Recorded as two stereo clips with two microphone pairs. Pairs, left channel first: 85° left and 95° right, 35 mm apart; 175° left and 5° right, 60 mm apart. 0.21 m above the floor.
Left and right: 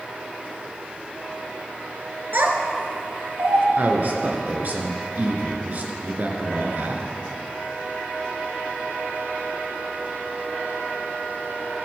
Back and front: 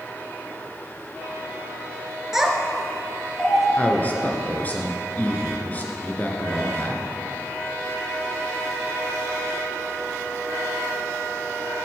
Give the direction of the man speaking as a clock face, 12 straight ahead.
4 o'clock.